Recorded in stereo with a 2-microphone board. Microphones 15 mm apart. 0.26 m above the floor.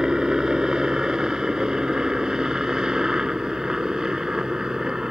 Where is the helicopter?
45° right (ahead or behind).